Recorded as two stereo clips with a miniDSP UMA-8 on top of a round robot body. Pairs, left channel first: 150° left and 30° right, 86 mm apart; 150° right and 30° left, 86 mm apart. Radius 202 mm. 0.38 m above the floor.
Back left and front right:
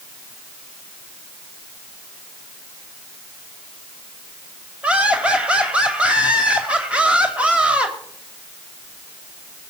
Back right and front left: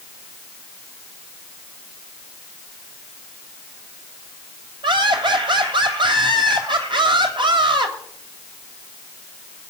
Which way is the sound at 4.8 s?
45° left.